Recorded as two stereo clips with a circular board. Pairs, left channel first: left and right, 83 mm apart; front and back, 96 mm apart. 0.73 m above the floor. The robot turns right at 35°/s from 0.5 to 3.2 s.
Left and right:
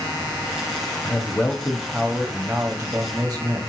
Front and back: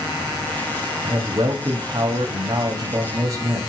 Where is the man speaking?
135° left, 0.8 m; by 3.6 s 150° right, 0.8 m.